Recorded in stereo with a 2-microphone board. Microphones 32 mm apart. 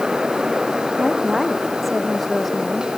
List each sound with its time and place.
1.0 s a woman speaking: 5° right (ahead or behind); by 2.9 s 5° left (ahead or behind)